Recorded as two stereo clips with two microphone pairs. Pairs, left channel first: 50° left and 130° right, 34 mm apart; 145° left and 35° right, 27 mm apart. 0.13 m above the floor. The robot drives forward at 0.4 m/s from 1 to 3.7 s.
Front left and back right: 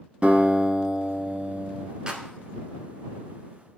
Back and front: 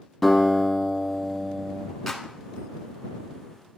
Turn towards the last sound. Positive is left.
turn(degrees=-160)